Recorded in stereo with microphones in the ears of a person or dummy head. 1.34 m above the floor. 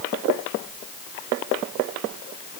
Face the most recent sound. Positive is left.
No sound to turn to.